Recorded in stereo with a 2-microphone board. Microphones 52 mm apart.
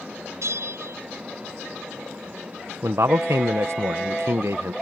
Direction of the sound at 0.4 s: 75° right (ahead or behind).